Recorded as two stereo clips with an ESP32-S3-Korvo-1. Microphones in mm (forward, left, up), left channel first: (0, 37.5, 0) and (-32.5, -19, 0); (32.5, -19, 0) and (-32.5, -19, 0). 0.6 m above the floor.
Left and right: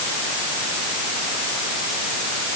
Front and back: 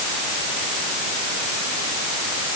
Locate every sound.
Only background noise.